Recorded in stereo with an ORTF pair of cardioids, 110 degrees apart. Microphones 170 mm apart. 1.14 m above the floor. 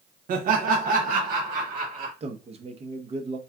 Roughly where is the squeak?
I don't hear a squeak.